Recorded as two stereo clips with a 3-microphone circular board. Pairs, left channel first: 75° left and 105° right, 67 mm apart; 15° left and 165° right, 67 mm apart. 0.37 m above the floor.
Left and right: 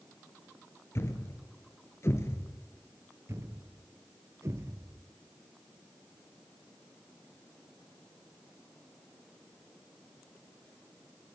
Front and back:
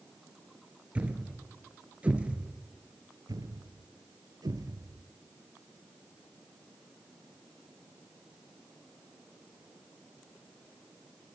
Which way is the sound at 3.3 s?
150° right.